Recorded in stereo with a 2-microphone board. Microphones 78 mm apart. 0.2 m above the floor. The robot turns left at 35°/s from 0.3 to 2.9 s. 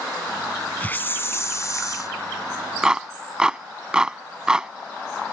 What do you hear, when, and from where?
0.8 s a hiss: 150° left; by 2.1 s 105° left
2.8 s a clap: 10° right (ahead or behind)